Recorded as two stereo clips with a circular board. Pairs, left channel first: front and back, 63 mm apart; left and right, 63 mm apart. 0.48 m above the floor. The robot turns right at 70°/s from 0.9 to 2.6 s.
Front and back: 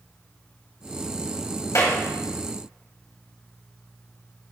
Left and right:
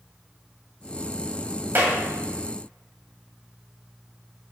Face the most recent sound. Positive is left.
turn(degrees=25)